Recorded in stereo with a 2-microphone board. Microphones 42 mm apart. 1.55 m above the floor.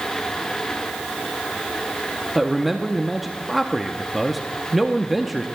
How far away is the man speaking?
About 0.7 m.